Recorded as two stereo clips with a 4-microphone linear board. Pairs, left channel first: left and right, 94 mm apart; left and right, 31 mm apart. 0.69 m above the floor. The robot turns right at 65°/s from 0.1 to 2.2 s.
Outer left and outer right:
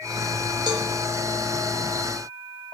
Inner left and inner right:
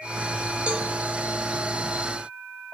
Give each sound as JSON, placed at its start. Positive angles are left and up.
{"t": 0.7, "sound": "a cowbell", "side_deg": -50, "distance_m": 1.6}